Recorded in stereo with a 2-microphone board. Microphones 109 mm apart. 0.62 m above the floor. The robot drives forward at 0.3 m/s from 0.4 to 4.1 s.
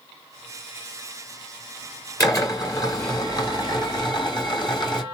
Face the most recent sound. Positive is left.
turn(degrees=45)  # may be behind; listen again after turning